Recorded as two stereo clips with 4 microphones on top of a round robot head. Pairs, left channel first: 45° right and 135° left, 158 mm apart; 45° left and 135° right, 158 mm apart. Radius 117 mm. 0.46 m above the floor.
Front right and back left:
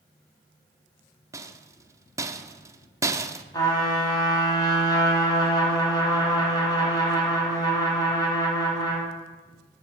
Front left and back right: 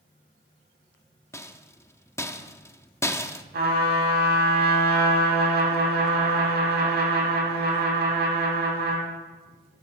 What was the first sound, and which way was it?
A rattle, 95° left.